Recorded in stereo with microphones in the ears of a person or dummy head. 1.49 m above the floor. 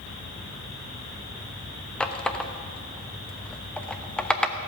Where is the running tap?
5° left (ahead or behind), 0.9 m.